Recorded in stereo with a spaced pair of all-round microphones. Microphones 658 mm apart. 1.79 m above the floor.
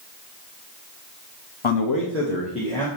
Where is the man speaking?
50° left (ahead or behind), 0.8 m; by 2.9 s 5° left (ahead or behind), 1.9 m.